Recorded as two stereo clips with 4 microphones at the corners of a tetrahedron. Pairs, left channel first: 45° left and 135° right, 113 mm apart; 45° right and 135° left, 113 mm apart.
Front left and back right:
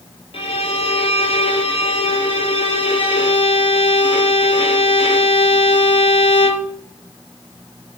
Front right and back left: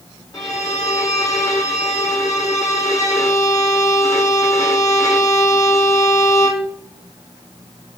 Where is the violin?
15° left, 0.5 m.